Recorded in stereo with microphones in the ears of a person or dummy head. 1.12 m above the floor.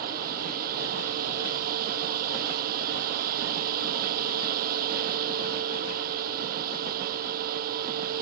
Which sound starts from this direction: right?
A fan, at 0.0 s.